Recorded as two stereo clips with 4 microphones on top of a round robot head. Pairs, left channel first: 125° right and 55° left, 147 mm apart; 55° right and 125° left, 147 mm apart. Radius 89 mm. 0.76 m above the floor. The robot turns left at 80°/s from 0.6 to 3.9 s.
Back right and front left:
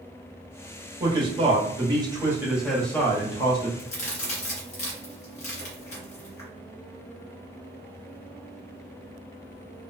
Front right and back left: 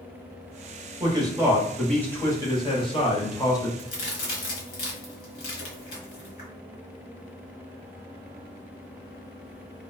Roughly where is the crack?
Right.